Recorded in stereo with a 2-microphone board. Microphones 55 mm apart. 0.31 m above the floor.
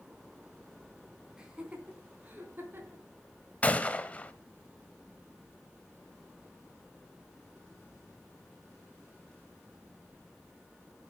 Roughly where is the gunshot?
Left.